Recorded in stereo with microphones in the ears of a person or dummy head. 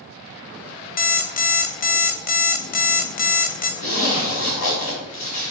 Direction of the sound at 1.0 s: 45° left (ahead or behind).